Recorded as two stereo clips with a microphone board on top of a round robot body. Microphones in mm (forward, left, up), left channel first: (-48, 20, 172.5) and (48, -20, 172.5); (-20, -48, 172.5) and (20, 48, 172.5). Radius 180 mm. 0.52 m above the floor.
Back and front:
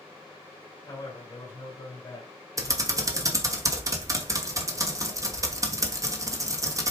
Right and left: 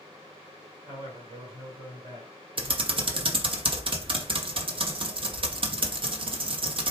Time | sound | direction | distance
0.9 | a man speaking | 100° left | 2.0 m
2.6 | typing on a keyboard | 35° left | 1.0 m